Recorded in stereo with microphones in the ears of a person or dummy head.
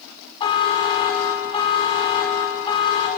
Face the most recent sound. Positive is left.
turn(degrees=30)  # may be behind; listen again after turning